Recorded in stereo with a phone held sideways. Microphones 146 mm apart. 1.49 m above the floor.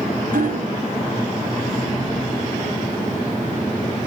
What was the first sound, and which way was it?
Hammering, 70° right (ahead or behind).